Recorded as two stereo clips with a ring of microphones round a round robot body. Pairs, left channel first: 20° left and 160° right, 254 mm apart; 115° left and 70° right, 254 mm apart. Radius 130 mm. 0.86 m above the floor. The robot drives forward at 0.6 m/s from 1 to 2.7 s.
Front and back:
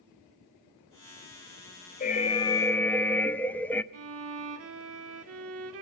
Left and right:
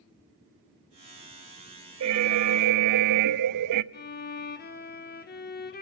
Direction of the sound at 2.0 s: 35° right.